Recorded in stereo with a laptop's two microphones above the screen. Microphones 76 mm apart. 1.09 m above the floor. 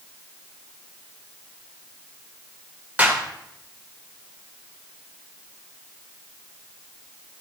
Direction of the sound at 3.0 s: 20° right (ahead or behind).